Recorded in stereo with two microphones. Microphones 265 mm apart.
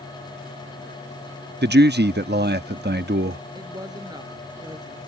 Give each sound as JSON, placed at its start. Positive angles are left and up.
{"t": 1.6, "sound": "a man speaking", "side_deg": -40}
{"t": 3.5, "sound": "a woman speaking", "side_deg": -15}